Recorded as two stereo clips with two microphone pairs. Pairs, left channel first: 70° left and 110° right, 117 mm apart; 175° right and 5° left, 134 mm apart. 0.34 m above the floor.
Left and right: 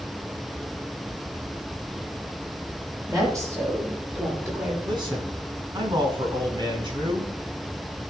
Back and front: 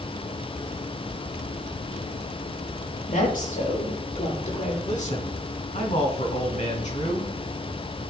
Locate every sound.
3.1 s a woman speaking: 170° right, 7.5 m; by 4.8 s 175° right, 7.5 m
4.8 s a man speaking: 155° right, 4 m